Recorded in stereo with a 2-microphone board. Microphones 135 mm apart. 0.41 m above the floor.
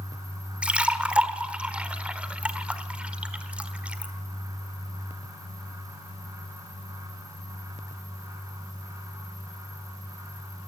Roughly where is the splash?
Centre.